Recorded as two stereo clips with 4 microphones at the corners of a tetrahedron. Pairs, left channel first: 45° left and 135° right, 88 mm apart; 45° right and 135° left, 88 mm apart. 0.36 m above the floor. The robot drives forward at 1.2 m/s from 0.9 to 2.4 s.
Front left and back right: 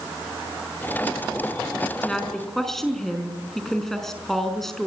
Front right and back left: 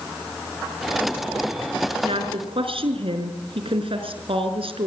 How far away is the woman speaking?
About 4.5 m.